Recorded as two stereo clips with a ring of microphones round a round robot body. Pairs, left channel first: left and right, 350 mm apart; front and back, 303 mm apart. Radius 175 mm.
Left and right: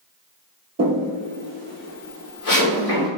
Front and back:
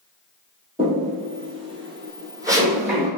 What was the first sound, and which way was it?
Footsteps, 120° right.